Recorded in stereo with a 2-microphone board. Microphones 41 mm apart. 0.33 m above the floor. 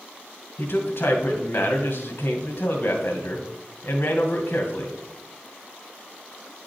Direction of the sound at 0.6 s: 60° left (ahead or behind).